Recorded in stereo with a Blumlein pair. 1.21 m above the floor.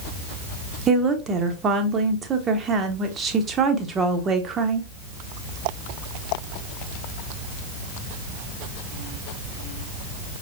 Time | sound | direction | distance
0.9 | a woman speaking | 20° right | 1.2 m